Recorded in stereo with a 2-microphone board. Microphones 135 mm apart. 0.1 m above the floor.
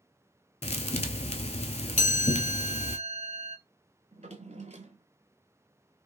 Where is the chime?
70° left (ahead or behind), 0.6 m.